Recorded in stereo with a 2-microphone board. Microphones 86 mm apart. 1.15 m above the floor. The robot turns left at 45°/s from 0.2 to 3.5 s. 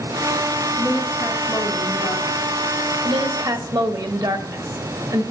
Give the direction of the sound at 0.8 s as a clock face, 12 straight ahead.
7 o'clock.